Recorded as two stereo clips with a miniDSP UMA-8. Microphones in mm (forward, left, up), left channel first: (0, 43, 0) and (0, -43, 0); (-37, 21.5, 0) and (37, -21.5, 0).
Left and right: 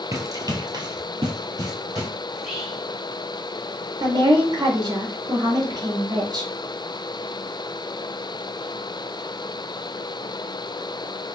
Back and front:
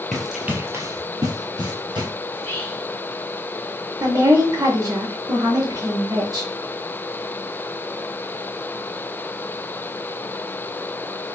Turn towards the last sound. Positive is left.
turn(degrees=-65)